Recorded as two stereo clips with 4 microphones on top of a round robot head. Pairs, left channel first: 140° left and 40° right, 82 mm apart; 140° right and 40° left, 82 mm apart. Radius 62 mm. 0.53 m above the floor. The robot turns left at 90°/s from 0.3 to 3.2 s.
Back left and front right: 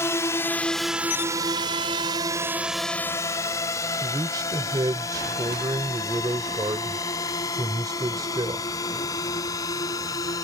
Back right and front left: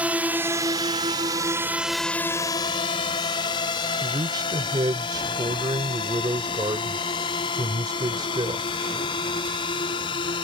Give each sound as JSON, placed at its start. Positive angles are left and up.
{"t": 0.0, "sound": "a drone", "azimuth_deg": 105}
{"t": 4.0, "sound": "a man speaking", "azimuth_deg": 0}